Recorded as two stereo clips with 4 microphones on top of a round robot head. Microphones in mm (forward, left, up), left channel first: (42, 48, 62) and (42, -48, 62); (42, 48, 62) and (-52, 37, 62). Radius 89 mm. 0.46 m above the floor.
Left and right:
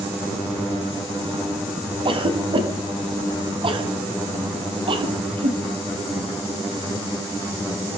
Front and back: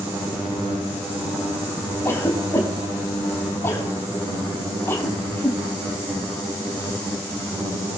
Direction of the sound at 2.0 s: 60° right.